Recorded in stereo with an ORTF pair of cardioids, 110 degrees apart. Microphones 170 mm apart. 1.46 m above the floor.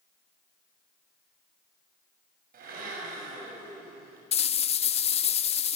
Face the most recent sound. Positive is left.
turn(degrees=40)